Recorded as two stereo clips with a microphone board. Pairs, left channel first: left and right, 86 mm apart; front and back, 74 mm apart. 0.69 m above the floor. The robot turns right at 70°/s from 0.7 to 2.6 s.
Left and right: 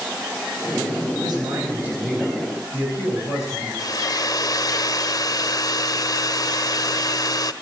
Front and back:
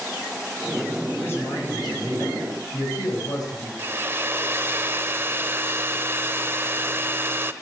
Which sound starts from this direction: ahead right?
A man speaking, at 1.2 s.